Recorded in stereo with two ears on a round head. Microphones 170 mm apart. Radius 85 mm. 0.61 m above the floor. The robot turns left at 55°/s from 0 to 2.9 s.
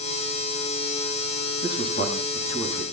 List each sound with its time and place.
1.6 s a man speaking: 65° left (ahead or behind), 6 m; by 2.8 s centre (ahead or behind), 6 m